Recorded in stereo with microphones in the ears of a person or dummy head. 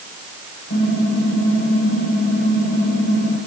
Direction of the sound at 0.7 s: 65° left (ahead or behind).